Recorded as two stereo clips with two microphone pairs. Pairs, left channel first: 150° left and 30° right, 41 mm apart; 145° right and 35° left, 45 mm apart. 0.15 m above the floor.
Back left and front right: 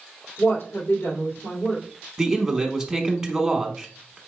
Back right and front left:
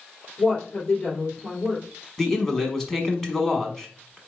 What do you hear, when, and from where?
0.4 s a woman speaking: 155° left, 2.5 m
2.2 s a man speaking: 90° right, 1.0 m